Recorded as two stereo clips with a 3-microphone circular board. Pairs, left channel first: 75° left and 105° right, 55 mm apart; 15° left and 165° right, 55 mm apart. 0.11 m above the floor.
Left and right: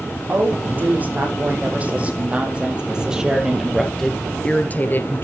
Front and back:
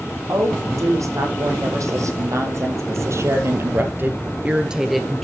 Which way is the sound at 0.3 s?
160° right.